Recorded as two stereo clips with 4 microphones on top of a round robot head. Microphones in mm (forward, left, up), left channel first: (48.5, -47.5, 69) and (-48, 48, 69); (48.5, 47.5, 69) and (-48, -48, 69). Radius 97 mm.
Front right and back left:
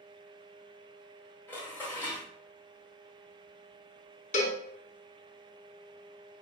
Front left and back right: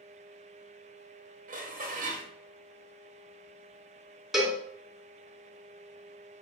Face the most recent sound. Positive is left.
turn(degrees=-50)